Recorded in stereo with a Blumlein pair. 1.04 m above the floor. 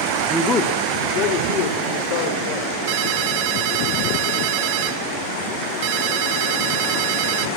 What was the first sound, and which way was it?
A man speaking, straight ahead.